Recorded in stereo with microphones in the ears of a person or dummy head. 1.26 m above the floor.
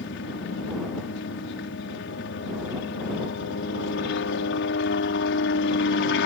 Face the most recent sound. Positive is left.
turn(degrees=60)  # may be behind; listen again after turning